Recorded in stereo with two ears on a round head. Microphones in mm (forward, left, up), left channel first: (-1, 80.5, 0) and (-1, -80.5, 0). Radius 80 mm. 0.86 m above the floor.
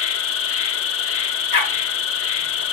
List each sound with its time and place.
0.0 s an insect: 85° left, 1.1 m
1.5 s a dog barking: 60° left (ahead or behind), 4.5 m